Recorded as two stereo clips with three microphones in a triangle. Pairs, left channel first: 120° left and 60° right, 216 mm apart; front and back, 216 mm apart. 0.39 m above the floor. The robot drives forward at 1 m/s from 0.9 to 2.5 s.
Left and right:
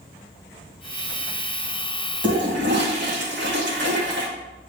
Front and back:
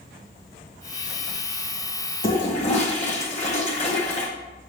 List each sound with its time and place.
2.2 s a toilet flushing: 45° right, 1.5 m; by 4.3 s 50° right, 1.4 m